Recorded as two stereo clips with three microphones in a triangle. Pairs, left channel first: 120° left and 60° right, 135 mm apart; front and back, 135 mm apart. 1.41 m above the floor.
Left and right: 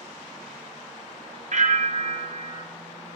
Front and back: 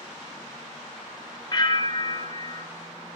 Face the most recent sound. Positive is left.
turn(degrees=-50)